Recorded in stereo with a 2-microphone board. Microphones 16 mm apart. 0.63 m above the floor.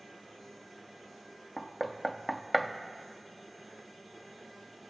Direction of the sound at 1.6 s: Centre (ahead or behind).